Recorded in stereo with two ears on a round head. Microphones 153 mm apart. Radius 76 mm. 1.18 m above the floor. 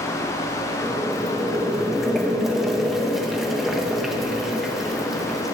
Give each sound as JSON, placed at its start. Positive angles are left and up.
{"t": 0.8, "sound": "boiling", "side_deg": 0, "distance_m": 1.3}